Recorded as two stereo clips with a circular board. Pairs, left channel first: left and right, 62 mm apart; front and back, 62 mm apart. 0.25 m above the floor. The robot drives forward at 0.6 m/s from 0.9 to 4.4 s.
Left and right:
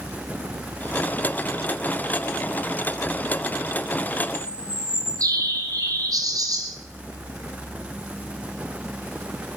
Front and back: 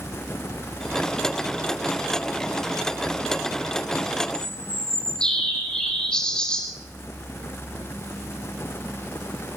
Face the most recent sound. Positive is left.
turn(degrees=-75)